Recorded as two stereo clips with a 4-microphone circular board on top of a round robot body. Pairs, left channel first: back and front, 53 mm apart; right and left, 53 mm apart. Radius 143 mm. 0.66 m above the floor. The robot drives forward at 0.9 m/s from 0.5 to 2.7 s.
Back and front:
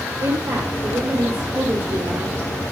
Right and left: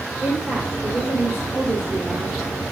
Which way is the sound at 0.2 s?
5° left.